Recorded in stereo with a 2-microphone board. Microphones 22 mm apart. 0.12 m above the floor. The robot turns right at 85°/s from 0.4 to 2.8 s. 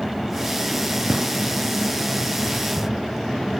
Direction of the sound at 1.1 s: 25° right (ahead or behind).